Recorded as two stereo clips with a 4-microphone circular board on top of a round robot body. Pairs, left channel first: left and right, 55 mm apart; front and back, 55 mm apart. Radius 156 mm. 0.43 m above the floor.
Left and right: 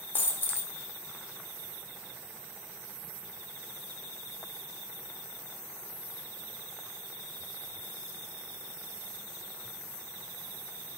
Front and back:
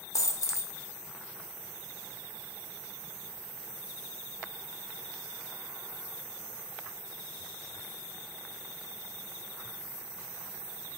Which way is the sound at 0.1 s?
35° left.